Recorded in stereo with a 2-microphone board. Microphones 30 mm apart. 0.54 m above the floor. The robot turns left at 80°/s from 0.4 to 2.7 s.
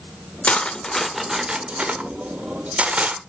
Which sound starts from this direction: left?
Cutlery clinking, at 0.4 s.